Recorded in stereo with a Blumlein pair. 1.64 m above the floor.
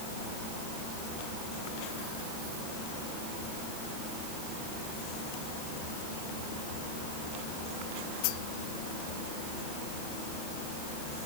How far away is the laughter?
I don't hear laughter.